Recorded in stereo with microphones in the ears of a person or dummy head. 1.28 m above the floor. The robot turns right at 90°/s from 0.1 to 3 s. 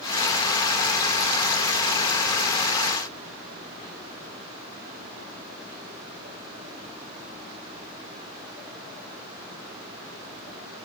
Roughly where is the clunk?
No clunk in this recording.